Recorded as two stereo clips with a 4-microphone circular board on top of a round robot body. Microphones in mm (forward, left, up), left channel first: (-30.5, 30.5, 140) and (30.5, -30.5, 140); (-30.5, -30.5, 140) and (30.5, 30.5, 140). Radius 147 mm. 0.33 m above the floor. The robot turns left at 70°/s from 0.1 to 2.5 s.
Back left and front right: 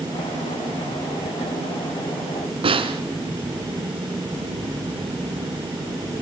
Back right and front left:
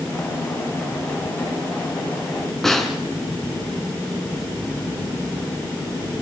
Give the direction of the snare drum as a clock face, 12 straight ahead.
2 o'clock.